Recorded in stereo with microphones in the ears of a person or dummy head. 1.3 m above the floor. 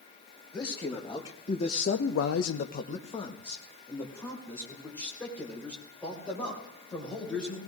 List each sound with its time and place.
0.5 s a man speaking: 20° left (ahead or behind), 2 m; by 7.6 s 5° left (ahead or behind), 6.5 m